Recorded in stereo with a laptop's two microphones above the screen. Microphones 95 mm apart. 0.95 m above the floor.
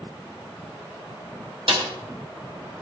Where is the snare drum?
75° right (ahead or behind), 5 m.